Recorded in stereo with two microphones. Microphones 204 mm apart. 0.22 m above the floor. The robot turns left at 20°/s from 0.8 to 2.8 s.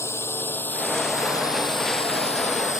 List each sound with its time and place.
0.0 s a drone: 10° left (ahead or behind); by 2.8 s 40° left (ahead or behind)